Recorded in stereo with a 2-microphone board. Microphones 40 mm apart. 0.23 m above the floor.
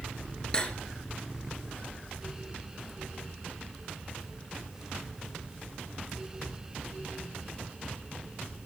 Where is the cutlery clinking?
20° left (ahead or behind), 2 m.